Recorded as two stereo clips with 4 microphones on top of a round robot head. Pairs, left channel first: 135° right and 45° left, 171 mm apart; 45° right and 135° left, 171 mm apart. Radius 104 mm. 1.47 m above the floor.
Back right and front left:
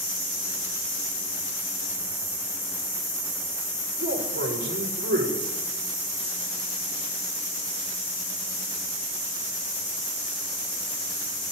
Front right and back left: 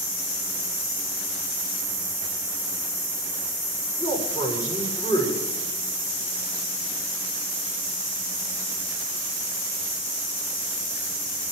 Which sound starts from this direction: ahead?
A man speaking, at 4.0 s.